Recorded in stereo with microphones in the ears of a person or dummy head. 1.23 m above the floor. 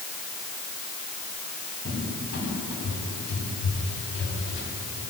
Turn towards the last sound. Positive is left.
turn(degrees=60)  # may be behind; listen again after turning